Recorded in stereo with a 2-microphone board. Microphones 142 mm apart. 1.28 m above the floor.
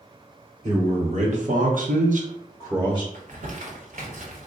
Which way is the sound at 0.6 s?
50° right (ahead or behind).